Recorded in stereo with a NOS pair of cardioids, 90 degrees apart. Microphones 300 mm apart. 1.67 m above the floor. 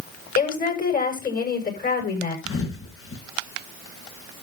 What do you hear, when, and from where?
0.3 s a woman speaking: 30° left, 7.5 m
2.5 s a thud: 45° left, 5 m